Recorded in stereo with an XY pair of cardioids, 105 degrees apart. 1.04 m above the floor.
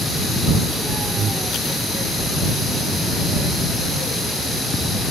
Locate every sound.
1.2 s breathing: 55° right